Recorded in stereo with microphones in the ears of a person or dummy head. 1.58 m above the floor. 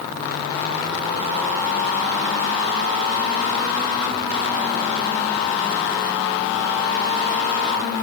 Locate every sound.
Only background noise.